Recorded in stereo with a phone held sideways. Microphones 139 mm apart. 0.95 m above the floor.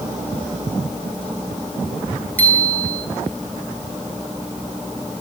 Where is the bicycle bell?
10° left (ahead or behind), 5.5 m.